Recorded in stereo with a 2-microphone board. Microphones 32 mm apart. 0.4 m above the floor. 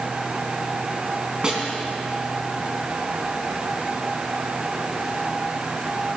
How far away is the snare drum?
About 4 m.